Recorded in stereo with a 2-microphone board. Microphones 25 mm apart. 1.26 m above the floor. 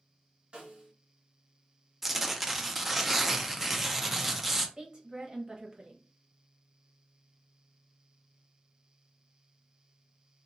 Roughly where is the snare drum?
Right.